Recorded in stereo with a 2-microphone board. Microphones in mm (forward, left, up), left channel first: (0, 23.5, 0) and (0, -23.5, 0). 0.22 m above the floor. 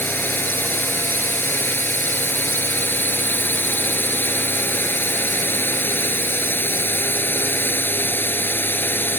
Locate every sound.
0.0 s a drone: 45° left (ahead or behind)